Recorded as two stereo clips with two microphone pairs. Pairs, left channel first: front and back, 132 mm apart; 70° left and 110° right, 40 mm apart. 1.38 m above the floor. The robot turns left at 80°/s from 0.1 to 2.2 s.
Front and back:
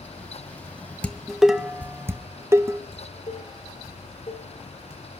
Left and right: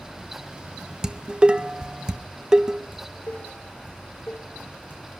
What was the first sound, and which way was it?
Dishes clattering, 60° right.